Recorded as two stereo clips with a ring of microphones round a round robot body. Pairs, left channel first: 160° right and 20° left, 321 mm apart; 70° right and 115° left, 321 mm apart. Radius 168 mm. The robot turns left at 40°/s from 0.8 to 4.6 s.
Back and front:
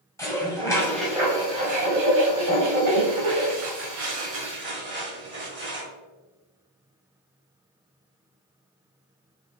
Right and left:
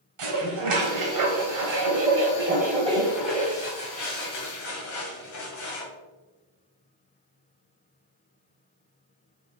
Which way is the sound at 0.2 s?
120° left.